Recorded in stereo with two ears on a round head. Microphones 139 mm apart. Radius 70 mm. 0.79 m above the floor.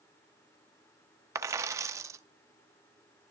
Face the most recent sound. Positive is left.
turn(degrees=-20)  # may be behind; listen again after turning